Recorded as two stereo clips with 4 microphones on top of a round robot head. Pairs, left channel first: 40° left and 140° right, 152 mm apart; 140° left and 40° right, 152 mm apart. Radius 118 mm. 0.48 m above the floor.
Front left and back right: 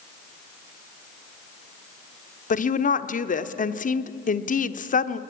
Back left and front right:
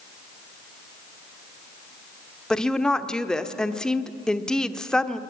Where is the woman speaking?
55° left, 1.1 m.